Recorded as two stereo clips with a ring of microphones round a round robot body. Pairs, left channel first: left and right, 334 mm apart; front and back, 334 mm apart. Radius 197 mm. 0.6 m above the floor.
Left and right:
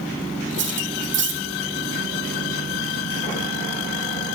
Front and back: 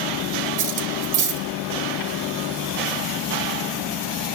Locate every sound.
0.6 s cutlery clinking: 150° right, 2 m